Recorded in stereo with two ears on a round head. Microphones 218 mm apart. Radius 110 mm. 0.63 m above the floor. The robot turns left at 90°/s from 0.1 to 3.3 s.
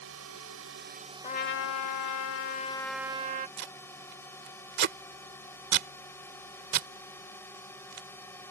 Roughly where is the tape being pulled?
Right.